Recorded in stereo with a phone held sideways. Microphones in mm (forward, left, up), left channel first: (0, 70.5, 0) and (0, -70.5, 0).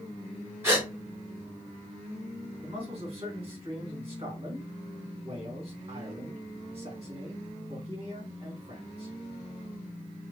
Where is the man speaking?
35° right (ahead or behind), 2.0 m.